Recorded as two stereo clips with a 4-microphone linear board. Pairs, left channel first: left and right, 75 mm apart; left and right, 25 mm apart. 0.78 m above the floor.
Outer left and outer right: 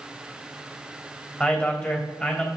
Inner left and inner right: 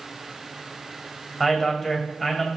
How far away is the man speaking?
About 3 m.